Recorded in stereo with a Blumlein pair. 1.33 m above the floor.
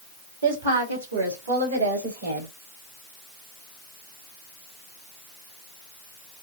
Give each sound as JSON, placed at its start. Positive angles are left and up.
{"t": 0.4, "sound": "a woman speaking", "azimuth_deg": -65, "distance_m": 2.0}